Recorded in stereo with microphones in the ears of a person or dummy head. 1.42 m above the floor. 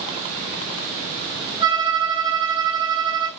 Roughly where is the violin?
Right.